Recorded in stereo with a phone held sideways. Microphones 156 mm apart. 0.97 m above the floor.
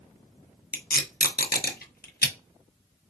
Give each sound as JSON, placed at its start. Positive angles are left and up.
{"t": 0.7, "sound": "tape being pulled", "side_deg": 85, "distance_m": 0.8}